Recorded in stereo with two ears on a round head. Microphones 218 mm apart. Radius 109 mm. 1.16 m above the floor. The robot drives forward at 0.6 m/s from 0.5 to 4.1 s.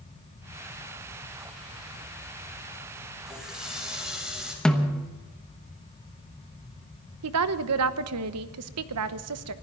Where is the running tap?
Centre (ahead or behind), 4.5 m; by 4.5 s 5° right (ahead or behind), 4 m.